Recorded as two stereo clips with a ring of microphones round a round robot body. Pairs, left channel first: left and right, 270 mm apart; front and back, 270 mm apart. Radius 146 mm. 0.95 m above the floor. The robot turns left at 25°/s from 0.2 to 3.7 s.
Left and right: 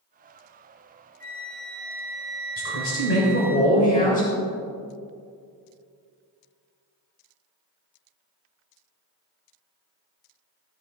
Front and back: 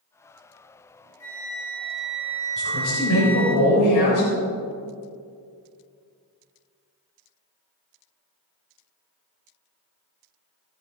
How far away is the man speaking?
About 4 m.